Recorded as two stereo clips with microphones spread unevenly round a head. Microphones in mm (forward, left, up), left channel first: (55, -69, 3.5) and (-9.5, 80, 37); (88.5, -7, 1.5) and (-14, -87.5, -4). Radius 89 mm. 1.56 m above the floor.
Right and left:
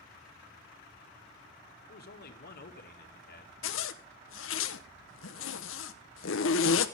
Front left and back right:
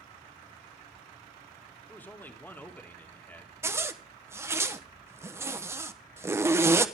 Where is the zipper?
70° right, 1.1 m.